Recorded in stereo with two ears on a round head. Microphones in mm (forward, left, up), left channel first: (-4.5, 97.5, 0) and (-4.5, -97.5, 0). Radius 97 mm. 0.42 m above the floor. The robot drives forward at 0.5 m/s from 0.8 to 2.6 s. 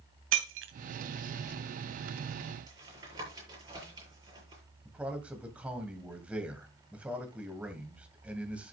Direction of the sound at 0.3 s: 65° right (ahead or behind).